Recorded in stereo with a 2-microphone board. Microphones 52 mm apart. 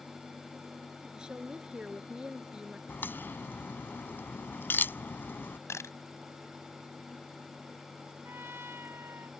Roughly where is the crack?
Left.